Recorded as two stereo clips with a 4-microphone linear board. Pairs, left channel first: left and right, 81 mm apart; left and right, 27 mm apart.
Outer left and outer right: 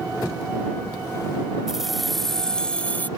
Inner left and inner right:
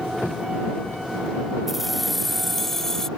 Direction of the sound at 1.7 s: 5° right (ahead or behind).